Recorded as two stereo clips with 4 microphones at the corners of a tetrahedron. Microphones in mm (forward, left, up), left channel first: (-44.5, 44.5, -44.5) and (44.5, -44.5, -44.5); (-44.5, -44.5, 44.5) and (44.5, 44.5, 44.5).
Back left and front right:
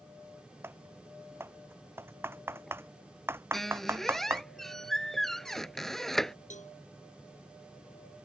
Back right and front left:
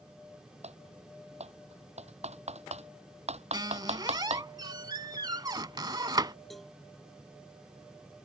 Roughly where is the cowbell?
Behind left.